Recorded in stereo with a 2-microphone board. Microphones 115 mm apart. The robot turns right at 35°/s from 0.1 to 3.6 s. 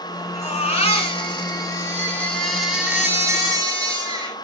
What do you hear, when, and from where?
0.3 s a baby crying: 100° left, 3.5 m; by 4.4 s 145° right, 3.5 m